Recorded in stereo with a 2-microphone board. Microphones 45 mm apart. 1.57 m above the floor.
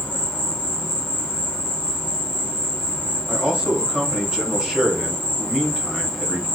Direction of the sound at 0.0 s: 10° right (ahead or behind).